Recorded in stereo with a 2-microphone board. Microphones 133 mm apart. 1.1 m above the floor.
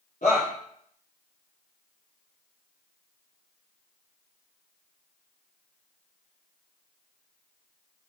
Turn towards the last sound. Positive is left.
turn(degrees=70)  # may be behind; listen again after turning